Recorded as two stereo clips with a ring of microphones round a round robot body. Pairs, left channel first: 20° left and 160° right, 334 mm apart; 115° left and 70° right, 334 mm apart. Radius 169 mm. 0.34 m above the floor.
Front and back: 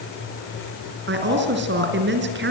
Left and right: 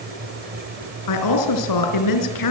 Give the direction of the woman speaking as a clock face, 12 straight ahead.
7 o'clock.